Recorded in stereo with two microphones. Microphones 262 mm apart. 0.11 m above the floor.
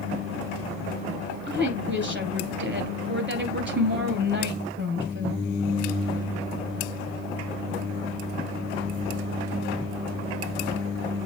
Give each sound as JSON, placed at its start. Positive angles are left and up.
{"t": 1.5, "sound": "a woman speaking", "side_deg": -45, "distance_m": 2.0}